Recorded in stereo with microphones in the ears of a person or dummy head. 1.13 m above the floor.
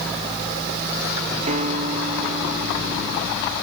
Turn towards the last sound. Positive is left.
turn(degrees=-35)  # may be behind; listen again after turning